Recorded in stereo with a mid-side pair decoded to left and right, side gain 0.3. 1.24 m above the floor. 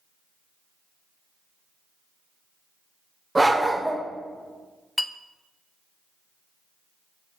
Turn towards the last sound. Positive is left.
turn(degrees=20)